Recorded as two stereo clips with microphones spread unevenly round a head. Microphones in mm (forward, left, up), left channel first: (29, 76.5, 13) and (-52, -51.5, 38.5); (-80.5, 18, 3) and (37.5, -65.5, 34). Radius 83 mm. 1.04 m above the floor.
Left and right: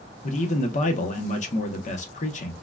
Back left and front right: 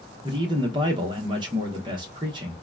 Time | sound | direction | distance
0.2 | a man speaking | 30° left | 0.9 m